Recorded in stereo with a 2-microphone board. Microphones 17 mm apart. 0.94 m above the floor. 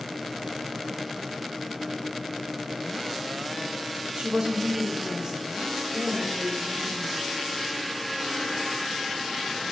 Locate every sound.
4.2 s a woman speaking: 60° right (ahead or behind), 0.9 m; by 7.3 s 40° right (ahead or behind), 3 m